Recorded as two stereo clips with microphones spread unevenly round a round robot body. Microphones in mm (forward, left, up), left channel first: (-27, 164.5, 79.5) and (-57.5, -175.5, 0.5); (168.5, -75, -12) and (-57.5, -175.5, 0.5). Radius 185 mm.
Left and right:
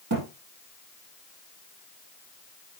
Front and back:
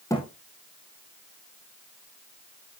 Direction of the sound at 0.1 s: 55° right.